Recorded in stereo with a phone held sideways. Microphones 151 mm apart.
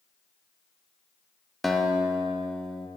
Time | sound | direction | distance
1.6 | a guitar | centre (ahead or behind) | 0.8 m